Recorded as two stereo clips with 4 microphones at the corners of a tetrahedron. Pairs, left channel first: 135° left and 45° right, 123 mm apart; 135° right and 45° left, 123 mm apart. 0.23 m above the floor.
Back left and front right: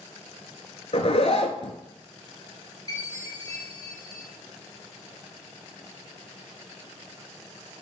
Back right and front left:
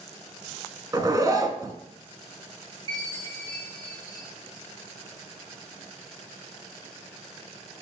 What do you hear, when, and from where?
0.9 s a zipper: 105° left, 0.8 m
2.9 s a chime: 85° left, 2 m